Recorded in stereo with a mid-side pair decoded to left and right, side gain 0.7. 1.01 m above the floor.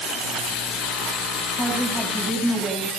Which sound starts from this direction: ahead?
A woman speaking, at 1.6 s.